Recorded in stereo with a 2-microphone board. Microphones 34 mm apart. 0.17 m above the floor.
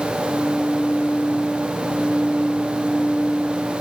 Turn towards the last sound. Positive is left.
No sound to turn to.